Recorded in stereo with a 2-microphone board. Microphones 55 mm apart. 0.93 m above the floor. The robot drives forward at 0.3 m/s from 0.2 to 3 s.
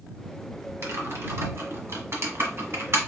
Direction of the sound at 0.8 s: 60° right (ahead or behind).